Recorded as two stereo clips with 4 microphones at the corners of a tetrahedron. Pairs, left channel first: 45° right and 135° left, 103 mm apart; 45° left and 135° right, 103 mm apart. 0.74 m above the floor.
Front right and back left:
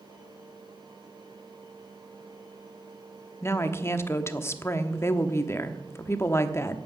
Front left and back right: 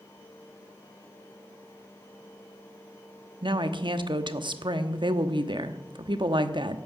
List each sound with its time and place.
3.4 s a woman speaking: 105° right, 1.0 m